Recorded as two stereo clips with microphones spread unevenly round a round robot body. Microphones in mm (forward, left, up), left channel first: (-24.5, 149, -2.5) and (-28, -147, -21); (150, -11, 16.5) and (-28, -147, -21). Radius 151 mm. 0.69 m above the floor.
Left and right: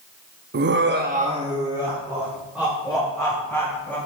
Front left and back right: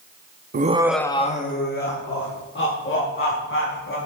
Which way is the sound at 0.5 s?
130° right.